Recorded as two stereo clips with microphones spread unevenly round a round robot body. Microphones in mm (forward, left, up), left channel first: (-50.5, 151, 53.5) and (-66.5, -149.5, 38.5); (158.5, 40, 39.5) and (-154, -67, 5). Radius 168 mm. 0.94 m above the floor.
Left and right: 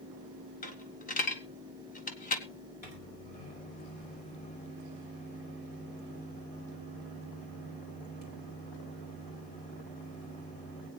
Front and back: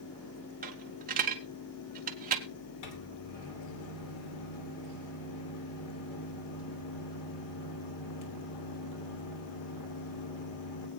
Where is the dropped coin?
135° left, 1.1 m.